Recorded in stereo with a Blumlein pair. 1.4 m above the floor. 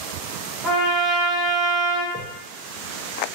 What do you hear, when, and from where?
0.6 s a trumpet: 10° right, 0.7 m
2.1 s a whoosh: straight ahead, 0.7 m